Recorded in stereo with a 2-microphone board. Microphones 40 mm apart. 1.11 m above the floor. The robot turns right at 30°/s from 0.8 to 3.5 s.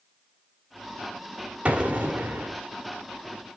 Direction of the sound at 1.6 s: 35° right (ahead or behind).